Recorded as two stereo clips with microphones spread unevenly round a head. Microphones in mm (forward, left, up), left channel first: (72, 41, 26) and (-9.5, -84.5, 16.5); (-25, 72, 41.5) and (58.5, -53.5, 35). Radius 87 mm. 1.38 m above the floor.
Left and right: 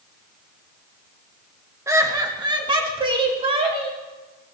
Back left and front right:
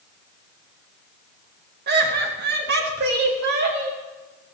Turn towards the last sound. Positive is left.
turn(degrees=-75)